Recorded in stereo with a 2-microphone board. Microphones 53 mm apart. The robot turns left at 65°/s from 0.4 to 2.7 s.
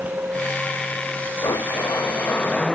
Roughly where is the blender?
Left.